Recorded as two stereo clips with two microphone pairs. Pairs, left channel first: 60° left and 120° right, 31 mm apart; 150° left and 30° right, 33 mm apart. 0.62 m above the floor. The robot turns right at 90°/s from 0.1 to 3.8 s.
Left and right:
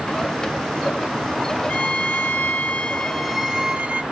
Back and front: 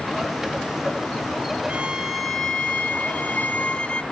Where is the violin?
10° left, 1.0 m; by 4.0 s 160° right, 1.0 m.